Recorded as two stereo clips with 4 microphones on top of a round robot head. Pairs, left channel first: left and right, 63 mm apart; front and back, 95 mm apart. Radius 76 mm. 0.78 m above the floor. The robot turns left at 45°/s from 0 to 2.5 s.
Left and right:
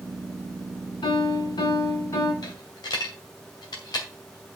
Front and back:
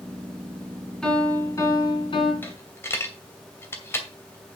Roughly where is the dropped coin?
Ahead left.